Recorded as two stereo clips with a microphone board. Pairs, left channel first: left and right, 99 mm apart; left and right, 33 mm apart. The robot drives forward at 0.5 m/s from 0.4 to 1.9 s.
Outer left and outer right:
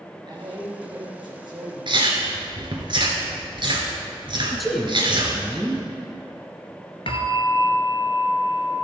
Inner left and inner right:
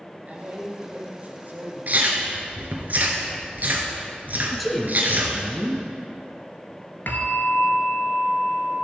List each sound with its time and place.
0.3 s a man speaking: 50° right (ahead or behind), 2.5 m; by 2.0 s 55° right (ahead or behind), 2.5 m
1.9 s chewing: 55° right (ahead or behind), 1.6 m
4.5 s a man speaking: centre (ahead or behind), 1.5 m
7.1 s a bell: 70° left (ahead or behind), 1.0 m